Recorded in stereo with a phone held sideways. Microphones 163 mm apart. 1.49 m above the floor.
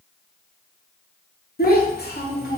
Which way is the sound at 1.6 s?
70° left (ahead or behind).